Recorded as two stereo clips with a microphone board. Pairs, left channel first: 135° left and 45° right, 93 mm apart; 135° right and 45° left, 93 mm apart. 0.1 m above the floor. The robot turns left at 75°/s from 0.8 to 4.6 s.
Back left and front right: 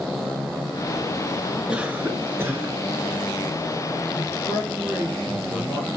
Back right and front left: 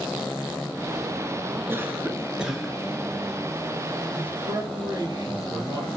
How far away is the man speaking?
About 2.5 m.